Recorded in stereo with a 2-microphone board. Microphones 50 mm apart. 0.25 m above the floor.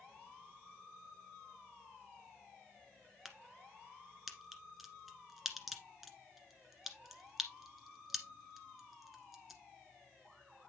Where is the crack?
Centre (ahead or behind), 1.5 m.